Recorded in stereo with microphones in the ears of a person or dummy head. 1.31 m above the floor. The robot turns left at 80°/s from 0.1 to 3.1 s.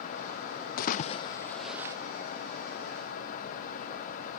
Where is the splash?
55° left (ahead or behind), 0.5 m; by 2.0 s 20° right (ahead or behind), 0.5 m.